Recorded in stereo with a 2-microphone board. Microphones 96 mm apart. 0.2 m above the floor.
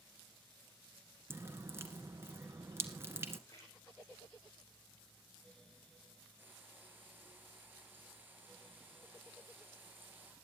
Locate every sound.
1.3 s dripping: 25° right (ahead or behind), 1.7 m
3.5 s a splash: 35° left (ahead or behind), 5.5 m
6.4 s frying: 20° right (ahead or behind), 6.5 m